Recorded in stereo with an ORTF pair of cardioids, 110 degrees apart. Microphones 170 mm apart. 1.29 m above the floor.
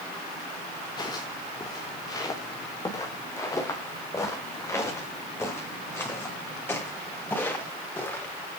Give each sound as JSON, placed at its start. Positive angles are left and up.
{"t": 1.0, "sound": "footsteps", "azimuth_deg": 25, "distance_m": 6.5}